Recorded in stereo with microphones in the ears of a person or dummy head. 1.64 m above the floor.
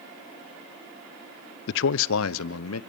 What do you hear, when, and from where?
1.7 s a man speaking: 70° left (ahead or behind), 0.5 m; by 2.8 s 80° left, 1.1 m